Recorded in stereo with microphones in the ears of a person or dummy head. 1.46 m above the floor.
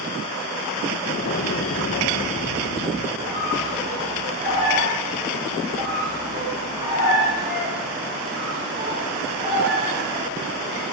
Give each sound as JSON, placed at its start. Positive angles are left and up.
{"t": 1.1, "sound": "an explosion", "side_deg": 50, "distance_m": 1.0}
{"t": 3.2, "sound": "a squeak", "side_deg": -20, "distance_m": 4.0}